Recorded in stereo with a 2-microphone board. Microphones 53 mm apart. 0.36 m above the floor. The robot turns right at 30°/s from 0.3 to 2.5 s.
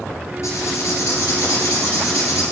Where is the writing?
60° left, 3.5 m; by 2.4 s 120° left, 3.5 m.